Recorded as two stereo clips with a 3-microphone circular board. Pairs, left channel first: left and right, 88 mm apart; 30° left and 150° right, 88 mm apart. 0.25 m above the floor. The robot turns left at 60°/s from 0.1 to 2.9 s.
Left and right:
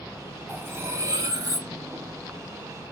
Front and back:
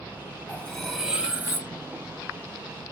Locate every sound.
0.5 s cutlery clinking: 35° right, 0.9 m; by 1.7 s 105° right, 0.9 m